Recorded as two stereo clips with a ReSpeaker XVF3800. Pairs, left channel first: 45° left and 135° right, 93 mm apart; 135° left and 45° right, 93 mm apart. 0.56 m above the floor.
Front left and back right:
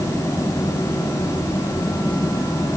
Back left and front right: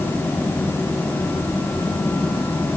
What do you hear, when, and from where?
Only background noise.